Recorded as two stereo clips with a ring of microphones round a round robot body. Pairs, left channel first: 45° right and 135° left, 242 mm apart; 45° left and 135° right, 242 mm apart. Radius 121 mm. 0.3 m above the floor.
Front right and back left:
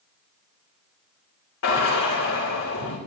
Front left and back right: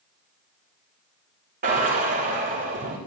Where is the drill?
80° right, 10 m.